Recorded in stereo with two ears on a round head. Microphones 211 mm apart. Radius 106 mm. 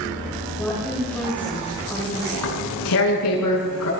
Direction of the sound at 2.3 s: 75° left (ahead or behind).